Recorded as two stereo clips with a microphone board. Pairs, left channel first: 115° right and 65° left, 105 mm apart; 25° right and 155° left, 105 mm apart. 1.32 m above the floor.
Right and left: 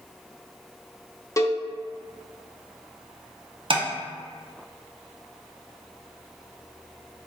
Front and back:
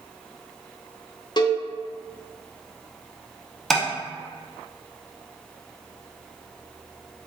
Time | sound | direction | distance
1.4 | a cowbell | 60° right | 0.5 m
3.7 | tapping | 65° left | 0.7 m